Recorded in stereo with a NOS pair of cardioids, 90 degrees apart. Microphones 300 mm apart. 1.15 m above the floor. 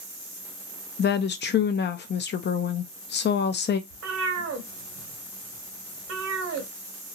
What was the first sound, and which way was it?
A woman speaking, 35° left.